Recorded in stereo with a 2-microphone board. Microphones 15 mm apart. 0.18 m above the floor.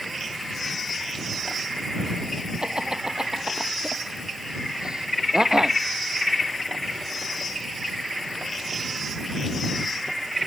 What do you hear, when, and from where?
2.6 s laughter: 55° right (ahead or behind)